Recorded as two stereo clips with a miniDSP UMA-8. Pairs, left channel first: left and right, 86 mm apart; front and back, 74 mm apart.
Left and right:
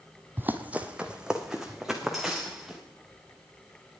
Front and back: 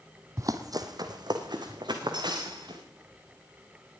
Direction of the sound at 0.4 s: 150° right.